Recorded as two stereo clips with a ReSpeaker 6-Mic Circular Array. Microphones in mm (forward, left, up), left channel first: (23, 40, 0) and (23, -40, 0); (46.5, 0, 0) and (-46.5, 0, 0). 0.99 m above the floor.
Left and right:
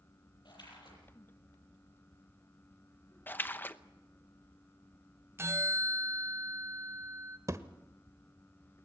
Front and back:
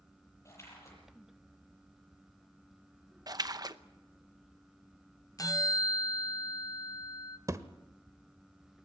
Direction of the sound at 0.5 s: 60° left.